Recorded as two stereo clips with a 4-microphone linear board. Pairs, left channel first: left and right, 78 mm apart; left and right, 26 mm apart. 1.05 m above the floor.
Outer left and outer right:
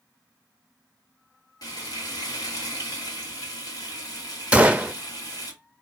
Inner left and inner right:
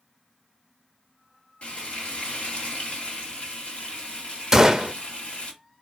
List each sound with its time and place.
1.6 s frying: 55° left (ahead or behind), 1.8 m
4.5 s a gunshot: 15° right (ahead or behind), 0.6 m